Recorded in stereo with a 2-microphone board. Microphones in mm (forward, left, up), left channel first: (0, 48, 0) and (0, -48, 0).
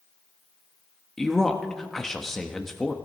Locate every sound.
1.2 s a man speaking: 5° left (ahead or behind), 1.1 m